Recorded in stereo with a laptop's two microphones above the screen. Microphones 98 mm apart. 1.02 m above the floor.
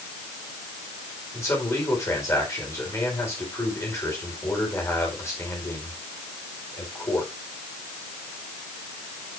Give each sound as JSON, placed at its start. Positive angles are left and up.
{"t": 1.3, "sound": "a man speaking", "side_deg": 25, "distance_m": 4.5}